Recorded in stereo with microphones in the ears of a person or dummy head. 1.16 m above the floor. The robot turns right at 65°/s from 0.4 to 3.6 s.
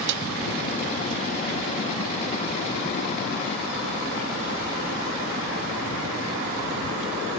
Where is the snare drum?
70° right (ahead or behind).